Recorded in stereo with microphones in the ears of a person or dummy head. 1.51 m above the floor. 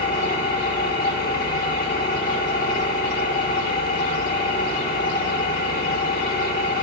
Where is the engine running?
50° left (ahead or behind), 2 m.